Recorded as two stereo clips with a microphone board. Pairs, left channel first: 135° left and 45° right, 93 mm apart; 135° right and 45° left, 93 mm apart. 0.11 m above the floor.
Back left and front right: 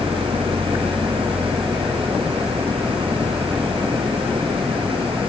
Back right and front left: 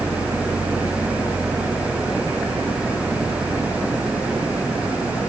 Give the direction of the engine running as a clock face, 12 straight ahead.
1 o'clock.